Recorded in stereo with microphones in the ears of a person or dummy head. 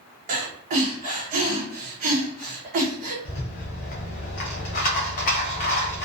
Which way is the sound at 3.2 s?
40° left (ahead or behind).